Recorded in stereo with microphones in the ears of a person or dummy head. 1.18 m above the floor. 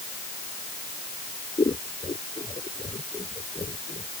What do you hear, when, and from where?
1.6 s scissors: 20° left (ahead or behind)